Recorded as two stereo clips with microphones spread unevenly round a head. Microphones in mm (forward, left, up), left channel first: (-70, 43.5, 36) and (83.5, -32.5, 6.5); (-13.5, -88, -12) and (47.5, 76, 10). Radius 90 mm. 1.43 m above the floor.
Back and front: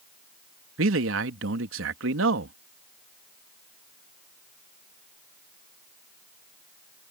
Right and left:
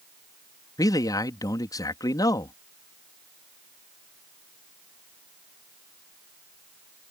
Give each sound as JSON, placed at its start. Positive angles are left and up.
{"t": 0.8, "sound": "a man speaking", "azimuth_deg": -40}